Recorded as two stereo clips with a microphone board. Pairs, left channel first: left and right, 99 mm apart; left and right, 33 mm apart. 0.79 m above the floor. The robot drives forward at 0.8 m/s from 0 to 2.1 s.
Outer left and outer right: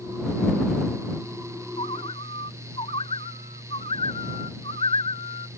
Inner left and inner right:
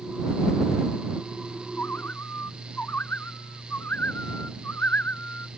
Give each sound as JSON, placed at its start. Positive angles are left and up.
{"t": 1.8, "sound": "a bird", "side_deg": 85}